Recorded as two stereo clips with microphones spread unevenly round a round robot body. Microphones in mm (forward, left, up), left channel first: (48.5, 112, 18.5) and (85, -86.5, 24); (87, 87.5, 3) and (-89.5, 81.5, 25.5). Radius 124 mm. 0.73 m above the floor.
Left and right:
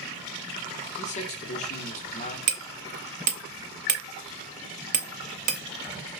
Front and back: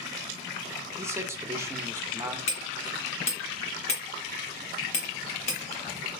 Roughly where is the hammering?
Ahead right.